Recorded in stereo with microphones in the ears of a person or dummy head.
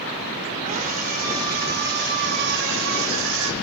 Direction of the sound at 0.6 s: 40° right (ahead or behind).